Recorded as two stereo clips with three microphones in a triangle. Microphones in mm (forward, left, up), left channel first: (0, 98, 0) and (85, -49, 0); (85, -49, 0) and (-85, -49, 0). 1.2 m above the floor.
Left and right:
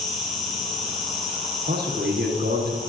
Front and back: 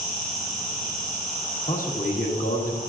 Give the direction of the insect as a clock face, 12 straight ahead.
11 o'clock.